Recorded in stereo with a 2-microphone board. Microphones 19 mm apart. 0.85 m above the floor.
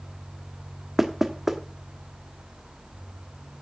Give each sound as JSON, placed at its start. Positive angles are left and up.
{"t": 1.0, "sound": "knocking", "side_deg": -20, "distance_m": 1.1}